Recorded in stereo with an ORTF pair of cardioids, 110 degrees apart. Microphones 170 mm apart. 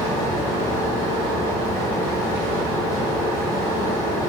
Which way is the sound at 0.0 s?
15° left.